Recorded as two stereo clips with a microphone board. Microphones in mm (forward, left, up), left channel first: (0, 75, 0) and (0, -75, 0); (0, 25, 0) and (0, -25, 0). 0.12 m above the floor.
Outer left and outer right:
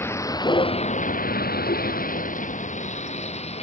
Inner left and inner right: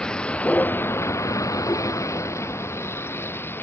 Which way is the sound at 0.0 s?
15° left (ahead or behind).